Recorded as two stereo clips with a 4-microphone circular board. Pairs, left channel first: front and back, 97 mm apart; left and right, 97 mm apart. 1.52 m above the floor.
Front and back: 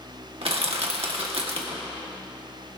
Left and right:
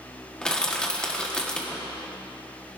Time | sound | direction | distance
0.4 | crushing | 170° left | 1.6 m